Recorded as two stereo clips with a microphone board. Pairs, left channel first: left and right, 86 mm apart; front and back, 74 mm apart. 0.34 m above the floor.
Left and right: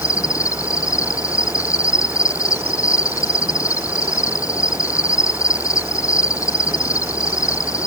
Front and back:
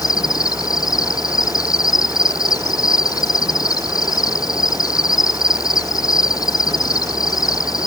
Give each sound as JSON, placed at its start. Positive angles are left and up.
{"t": 0.0, "sound": "an insect", "azimuth_deg": 35}